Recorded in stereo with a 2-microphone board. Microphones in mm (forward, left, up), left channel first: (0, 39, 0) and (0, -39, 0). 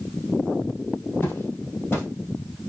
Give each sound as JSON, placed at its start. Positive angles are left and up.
{"t": 1.2, "sound": "footsteps", "side_deg": 30, "distance_m": 2.5}